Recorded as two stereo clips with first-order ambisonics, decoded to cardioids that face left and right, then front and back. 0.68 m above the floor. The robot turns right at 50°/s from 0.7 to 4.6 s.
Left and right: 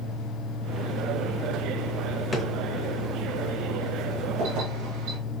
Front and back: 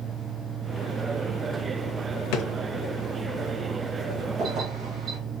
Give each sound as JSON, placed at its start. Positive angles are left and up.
{"t": 2.3, "sound": "a drawer", "azimuth_deg": 10, "distance_m": 0.8}
{"t": 4.4, "sound": "keys jangling", "azimuth_deg": -125, "distance_m": 2.5}